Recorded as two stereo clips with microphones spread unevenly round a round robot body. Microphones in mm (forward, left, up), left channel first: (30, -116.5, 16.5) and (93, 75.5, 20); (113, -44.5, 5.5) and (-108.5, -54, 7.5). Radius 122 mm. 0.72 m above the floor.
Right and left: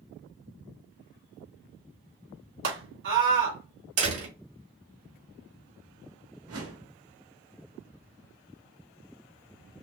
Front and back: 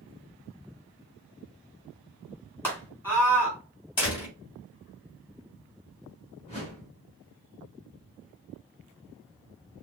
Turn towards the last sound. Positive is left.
turn(degrees=70)